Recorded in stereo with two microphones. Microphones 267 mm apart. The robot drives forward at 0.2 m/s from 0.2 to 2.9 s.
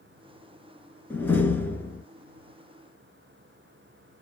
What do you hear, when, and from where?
1.1 s a door slam: 5° left (ahead or behind), 0.8 m